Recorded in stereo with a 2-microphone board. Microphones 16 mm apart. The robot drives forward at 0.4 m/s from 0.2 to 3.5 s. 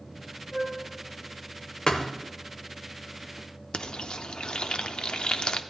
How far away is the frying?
About 0.6 m.